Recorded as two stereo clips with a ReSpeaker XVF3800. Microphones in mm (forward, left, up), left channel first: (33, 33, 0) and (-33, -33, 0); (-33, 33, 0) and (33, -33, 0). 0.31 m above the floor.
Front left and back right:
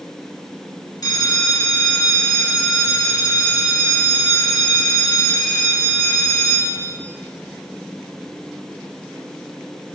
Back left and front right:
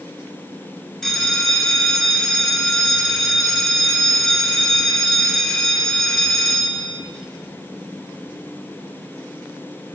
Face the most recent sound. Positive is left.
turn(degrees=50)